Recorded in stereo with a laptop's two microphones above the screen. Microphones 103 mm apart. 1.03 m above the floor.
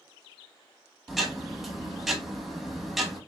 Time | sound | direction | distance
1.1 | ticking | 5° right (ahead or behind) | 1.0 m